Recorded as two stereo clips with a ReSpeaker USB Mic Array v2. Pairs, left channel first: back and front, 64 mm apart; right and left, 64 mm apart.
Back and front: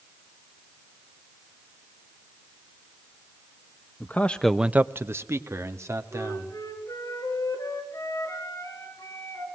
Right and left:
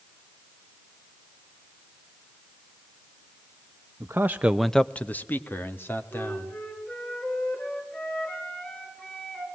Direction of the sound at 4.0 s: 130° left.